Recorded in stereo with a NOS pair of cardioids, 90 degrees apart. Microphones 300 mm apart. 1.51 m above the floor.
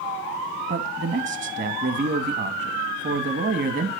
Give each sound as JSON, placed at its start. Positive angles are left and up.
{"t": 0.7, "sound": "a man speaking", "azimuth_deg": -40, "distance_m": 3.0}